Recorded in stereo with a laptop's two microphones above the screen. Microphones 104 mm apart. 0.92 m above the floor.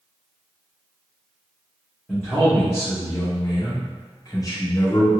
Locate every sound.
2.1 s a man speaking: 10° left (ahead or behind), 1.1 m; by 5.1 s 30° left (ahead or behind), 1.3 m